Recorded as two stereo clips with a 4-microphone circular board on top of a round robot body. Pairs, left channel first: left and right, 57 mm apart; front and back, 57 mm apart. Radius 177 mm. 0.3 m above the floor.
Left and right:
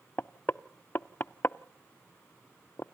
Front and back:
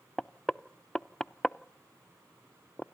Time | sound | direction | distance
0.2 | knocking | 70° left | 0.6 m